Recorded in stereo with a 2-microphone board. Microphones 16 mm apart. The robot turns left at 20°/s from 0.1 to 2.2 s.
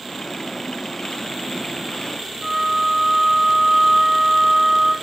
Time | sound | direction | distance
2.4 | a flute | 65° right (ahead or behind) | 3.5 m